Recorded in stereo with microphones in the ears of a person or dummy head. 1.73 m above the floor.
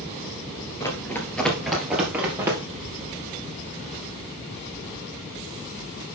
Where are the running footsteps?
15° left (ahead or behind), 2 m; by 2.6 s 15° right (ahead or behind), 2.5 m.